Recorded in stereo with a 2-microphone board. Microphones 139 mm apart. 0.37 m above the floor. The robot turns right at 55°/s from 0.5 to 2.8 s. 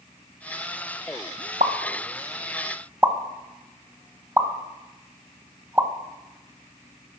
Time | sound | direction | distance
1.6 | a pop | 75° right (ahead or behind) | 0.7 m